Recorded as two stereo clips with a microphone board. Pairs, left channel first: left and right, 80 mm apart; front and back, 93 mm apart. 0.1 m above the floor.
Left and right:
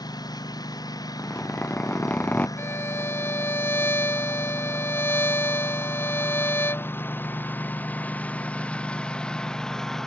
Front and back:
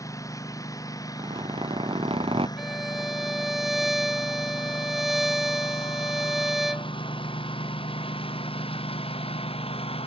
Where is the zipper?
160° left.